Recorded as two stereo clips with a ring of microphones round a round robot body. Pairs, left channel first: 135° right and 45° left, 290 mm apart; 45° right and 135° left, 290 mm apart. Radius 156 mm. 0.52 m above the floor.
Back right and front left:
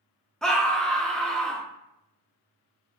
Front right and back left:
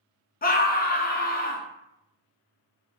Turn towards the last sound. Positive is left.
turn(degrees=-50)